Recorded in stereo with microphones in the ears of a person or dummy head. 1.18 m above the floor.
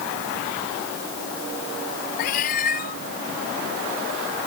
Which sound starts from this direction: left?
A cat meowing, at 2.2 s.